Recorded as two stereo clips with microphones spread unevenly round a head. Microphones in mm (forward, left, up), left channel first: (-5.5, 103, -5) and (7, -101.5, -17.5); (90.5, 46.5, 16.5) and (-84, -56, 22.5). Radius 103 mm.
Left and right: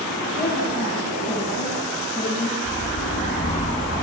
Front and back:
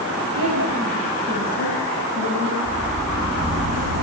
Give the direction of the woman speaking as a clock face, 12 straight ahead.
6 o'clock.